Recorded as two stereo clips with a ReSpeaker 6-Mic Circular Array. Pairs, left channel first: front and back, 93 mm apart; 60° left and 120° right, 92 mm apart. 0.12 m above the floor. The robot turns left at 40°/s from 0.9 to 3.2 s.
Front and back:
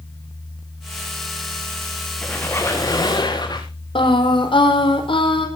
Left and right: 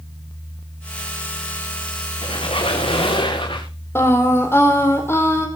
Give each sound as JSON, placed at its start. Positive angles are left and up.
{"t": 2.2, "sound": "a squeak", "azimuth_deg": 80, "distance_m": 5.0}
{"t": 4.0, "sound": "singing", "azimuth_deg": 0, "distance_m": 4.0}